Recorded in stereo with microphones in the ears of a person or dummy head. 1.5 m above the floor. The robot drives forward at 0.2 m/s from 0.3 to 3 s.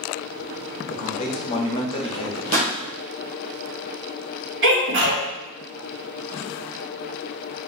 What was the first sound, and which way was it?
A man speaking, 35° left (ahead or behind).